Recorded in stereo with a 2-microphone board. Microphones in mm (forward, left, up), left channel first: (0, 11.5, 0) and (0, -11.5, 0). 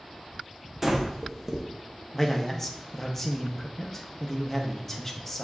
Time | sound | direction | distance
0.8 | breathing | 10° right (ahead or behind) | 0.7 m
2.1 | a man speaking | 20° left (ahead or behind) | 0.6 m